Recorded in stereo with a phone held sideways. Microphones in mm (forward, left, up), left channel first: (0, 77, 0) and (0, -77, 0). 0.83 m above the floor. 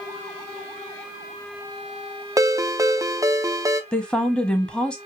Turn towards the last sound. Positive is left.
turn(degrees=5)  # may be behind; listen again after turning